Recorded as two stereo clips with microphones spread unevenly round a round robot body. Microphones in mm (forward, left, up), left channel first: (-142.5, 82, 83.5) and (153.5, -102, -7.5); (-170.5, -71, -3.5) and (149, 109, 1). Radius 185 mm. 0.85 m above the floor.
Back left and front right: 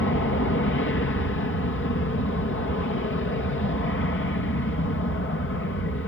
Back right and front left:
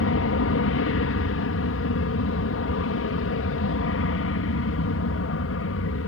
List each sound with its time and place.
0.0 s an aircraft: 155° right